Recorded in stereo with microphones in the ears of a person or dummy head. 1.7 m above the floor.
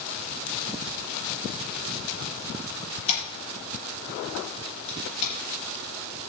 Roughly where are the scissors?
Left.